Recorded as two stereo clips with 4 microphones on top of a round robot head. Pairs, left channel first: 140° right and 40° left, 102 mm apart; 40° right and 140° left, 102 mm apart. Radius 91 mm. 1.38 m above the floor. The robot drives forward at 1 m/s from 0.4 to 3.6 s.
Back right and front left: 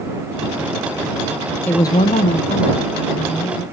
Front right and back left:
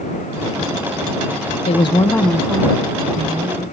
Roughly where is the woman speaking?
Ahead right.